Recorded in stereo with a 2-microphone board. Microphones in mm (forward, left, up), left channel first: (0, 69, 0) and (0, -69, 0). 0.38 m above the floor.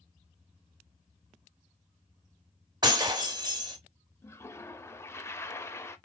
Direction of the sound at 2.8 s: 30° right (ahead or behind).